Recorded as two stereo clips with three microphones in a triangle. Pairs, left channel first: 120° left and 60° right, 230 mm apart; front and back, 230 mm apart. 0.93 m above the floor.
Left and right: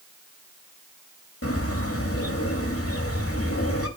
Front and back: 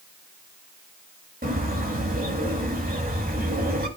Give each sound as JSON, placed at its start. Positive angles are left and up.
{"t": 1.4, "sound": "a bird", "azimuth_deg": 130, "distance_m": 2.0}